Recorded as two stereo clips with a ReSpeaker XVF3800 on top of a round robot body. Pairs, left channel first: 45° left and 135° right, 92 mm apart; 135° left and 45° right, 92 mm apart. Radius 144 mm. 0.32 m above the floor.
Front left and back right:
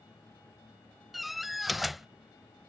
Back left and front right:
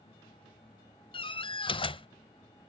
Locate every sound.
1.1 s a door slam: 135° left